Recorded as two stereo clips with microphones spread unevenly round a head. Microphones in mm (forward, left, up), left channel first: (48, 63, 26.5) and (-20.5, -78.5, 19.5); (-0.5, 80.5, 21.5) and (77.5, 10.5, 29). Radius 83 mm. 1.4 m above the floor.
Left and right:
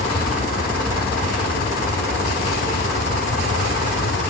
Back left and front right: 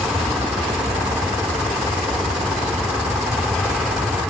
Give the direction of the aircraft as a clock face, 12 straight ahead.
11 o'clock.